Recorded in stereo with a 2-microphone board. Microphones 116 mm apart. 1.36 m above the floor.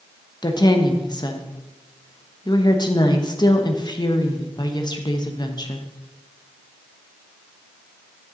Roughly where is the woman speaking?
Left.